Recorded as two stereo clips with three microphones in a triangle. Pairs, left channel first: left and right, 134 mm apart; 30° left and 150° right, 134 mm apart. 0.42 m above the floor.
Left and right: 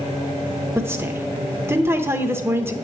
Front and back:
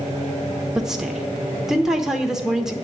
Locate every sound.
0.8 s a woman speaking: 70° right, 0.8 m